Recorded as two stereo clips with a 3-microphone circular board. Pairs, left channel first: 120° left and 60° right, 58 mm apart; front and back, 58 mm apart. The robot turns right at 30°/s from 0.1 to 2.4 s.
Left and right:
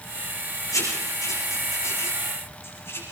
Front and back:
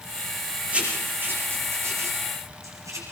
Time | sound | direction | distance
0.7 | writing | 115° left | 6.5 m